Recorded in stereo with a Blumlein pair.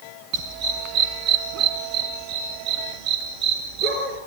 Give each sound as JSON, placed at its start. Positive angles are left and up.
{"t": 0.3, "sound": "a dog barking", "azimuth_deg": -35, "distance_m": 3.0}